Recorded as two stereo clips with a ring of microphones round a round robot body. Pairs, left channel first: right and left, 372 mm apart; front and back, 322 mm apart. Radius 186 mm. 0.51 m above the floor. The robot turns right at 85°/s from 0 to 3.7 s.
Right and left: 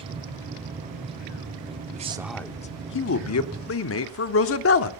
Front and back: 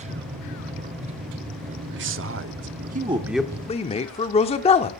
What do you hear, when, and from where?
2.0 s a man speaking: 150° left, 1.0 m; by 4.9 s 65° right, 1.0 m